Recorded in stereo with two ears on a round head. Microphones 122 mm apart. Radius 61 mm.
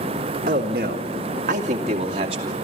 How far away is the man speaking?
About 1.7 m.